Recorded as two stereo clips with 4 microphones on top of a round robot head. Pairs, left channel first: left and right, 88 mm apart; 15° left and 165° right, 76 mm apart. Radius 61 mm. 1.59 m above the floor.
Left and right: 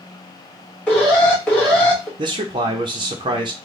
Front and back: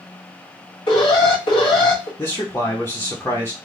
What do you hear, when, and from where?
0.9 s an alarm: 15° left, 1.7 m
2.2 s a man speaking: 60° right, 0.7 m